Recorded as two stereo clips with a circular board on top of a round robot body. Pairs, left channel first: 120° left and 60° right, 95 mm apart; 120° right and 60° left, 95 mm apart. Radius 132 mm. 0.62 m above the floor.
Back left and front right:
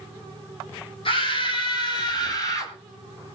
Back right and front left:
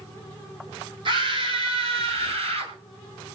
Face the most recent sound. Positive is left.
turn(degrees=65)